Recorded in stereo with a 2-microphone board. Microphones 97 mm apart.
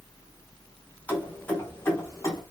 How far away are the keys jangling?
About 1.4 m.